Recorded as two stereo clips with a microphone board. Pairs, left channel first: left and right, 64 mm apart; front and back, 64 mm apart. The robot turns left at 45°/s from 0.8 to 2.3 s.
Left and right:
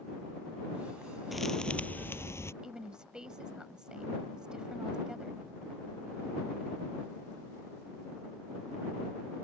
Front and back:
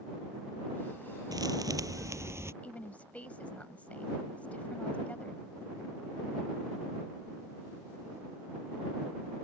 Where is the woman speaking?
30° right.